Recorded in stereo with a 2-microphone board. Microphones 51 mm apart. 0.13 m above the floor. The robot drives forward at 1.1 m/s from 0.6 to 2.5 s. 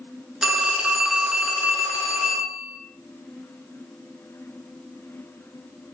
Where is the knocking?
I don't hear knocking.